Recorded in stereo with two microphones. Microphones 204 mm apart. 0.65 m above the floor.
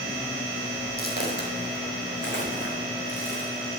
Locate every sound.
1.0 s footsteps: 45° left (ahead or behind), 1.7 m; by 3.5 s 65° left (ahead or behind), 3.5 m